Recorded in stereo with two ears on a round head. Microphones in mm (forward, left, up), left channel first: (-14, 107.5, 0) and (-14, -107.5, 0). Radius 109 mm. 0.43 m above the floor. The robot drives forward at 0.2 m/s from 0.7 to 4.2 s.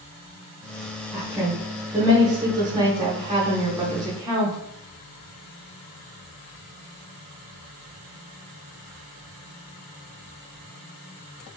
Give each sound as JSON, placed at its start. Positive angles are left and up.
{"t": 1.1, "sound": "a woman speaking", "side_deg": -15, "distance_m": 0.8}